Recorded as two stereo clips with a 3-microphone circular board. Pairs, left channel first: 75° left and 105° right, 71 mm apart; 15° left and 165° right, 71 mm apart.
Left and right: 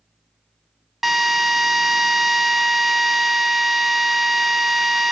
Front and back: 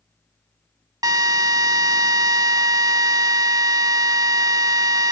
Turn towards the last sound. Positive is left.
turn(degrees=165)